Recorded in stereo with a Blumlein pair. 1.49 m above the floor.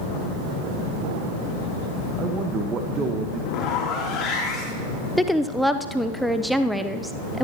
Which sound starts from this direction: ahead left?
A zipper, at 3.5 s.